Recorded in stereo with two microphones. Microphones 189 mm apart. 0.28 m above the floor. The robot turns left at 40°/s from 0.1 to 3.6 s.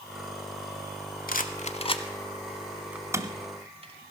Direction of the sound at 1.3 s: 55° left (ahead or behind).